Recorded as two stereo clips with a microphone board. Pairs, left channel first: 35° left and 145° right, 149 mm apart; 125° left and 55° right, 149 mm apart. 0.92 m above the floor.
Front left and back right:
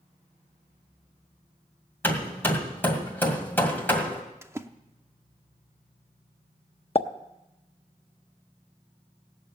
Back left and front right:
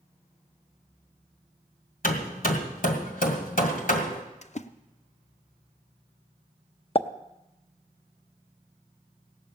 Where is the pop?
75° left, 0.6 m.